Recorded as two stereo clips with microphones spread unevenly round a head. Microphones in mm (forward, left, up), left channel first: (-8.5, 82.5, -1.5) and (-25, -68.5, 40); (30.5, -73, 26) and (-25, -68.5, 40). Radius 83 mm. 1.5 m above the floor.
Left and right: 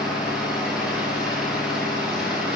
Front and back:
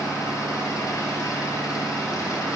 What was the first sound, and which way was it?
An engine running, 15° right.